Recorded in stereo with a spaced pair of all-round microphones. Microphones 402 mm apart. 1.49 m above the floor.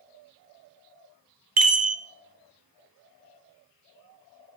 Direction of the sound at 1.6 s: 60° right (ahead or behind).